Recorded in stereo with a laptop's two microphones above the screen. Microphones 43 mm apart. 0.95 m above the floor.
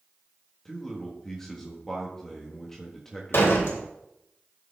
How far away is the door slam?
About 2.5 m.